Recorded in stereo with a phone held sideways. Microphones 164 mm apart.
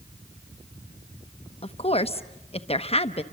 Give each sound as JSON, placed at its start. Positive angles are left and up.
{"t": 1.6, "sound": "a woman speaking", "side_deg": 35, "distance_m": 0.9}